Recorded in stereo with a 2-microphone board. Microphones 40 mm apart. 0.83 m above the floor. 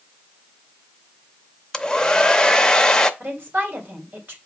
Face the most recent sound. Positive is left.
turn(degrees=-55)  # may be behind; listen again after turning